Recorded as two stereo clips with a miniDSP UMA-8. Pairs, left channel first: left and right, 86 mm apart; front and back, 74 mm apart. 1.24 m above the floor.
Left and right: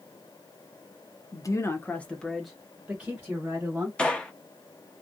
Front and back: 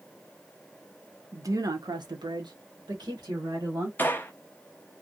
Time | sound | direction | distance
1.3 | a woman speaking | 130° left | 0.6 m
4.0 | a gunshot | 20° left | 0.5 m